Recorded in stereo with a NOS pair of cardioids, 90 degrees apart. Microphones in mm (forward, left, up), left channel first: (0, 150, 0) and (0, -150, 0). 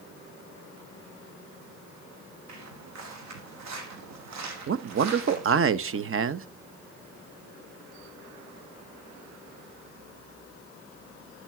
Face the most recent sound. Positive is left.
turn(degrees=-45)